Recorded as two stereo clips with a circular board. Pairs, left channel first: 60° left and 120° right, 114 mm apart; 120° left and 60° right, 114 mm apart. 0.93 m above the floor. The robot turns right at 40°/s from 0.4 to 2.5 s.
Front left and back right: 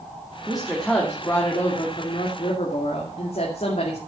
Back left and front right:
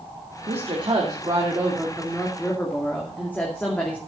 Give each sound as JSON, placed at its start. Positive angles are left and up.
{"t": 0.5, "sound": "a woman speaking", "azimuth_deg": -40, "distance_m": 2.5}